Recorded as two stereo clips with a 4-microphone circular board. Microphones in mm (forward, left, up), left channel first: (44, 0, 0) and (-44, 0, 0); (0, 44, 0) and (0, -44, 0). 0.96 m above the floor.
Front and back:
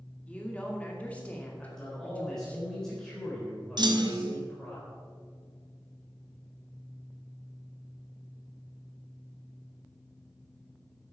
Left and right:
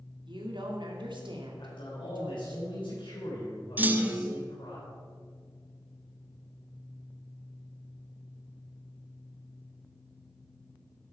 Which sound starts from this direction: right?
A woman speaking, at 0.3 s.